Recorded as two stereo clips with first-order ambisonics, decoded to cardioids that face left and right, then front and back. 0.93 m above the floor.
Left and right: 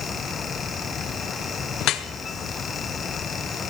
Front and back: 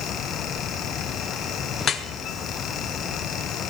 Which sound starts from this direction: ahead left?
Dripping, at 1.8 s.